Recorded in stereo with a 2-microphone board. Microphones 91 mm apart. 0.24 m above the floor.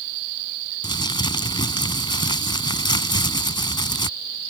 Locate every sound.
0.8 s crumpling: 60° left (ahead or behind)